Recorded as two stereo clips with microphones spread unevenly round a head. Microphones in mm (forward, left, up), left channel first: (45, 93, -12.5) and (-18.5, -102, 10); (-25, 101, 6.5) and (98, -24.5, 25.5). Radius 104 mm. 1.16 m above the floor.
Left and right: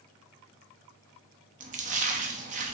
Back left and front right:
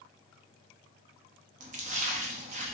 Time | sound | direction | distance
1.6 | a splash | 75° right | 0.6 m